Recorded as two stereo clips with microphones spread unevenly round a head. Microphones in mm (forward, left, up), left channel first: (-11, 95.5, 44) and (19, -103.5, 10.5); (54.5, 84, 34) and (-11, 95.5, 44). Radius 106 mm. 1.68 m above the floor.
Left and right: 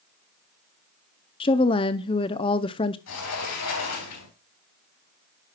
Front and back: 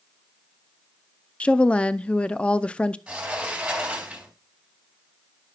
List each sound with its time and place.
1.4 s a woman speaking: 65° left, 0.5 m
3.1 s a sliding door: 95° left, 3.5 m